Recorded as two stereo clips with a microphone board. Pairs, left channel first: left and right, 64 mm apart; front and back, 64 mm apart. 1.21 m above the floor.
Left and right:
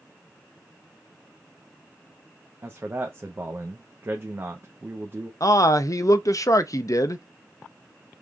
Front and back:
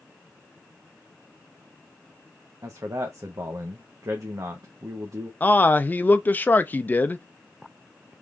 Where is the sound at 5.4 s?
60° left, 0.5 m.